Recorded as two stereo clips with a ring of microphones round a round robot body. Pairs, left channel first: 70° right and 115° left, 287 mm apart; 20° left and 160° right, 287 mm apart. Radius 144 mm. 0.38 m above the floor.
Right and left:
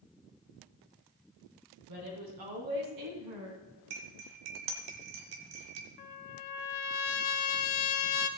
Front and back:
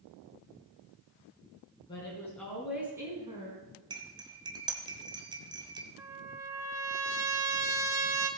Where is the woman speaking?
100° left, 3.5 m; by 3.8 s 140° left, 3.5 m.